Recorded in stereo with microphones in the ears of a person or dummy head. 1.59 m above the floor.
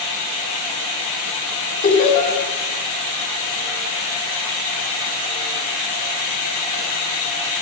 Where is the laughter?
50° left (ahead or behind), 5.5 m.